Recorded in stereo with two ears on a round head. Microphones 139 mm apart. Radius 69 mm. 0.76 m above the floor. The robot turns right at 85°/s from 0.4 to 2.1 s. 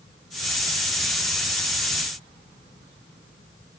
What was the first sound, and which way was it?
Only background noise.